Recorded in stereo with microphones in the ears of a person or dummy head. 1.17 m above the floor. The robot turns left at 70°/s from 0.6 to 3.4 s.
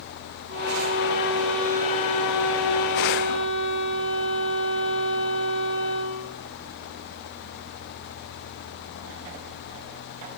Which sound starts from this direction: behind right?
A violin, at 0.5 s.